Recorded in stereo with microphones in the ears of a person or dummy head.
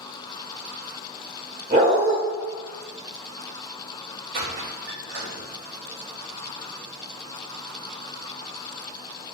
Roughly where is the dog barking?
Centre.